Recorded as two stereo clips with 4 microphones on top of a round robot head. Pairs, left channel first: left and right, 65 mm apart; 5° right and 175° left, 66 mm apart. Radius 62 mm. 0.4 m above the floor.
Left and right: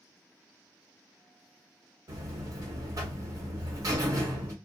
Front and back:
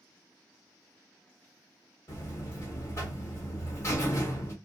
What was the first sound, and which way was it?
A buzzer, 55° right.